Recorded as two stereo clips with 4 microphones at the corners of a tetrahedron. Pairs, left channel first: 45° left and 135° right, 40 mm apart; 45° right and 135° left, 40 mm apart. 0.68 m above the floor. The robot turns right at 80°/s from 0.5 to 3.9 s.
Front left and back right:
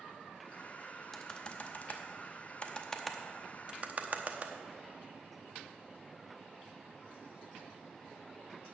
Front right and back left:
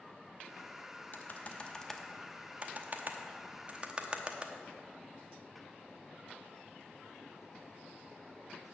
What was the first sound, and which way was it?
Typing on a keyboard, 30° right.